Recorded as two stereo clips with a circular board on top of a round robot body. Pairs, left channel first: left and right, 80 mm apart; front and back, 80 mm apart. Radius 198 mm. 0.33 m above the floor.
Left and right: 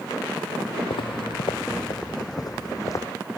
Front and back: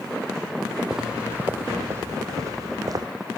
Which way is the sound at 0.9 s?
95° left.